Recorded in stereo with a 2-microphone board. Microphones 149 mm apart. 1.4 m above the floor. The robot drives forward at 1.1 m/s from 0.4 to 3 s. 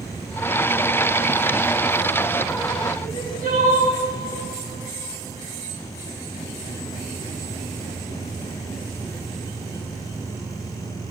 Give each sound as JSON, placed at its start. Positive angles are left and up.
{"t": 3.0, "sound": "crying", "side_deg": -70, "distance_m": 4.5}